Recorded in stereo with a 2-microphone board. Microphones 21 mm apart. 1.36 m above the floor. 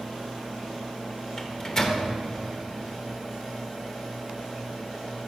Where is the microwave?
25° left (ahead or behind), 0.6 m.